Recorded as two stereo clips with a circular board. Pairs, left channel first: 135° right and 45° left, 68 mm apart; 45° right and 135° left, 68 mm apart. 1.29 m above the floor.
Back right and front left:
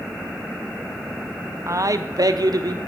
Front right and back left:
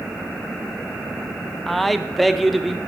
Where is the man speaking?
45° left, 0.6 m.